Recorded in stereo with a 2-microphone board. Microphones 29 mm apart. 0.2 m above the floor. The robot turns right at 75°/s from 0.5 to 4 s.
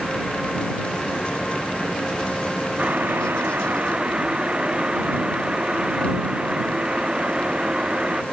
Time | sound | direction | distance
2.8 | boiling | 125° right | ?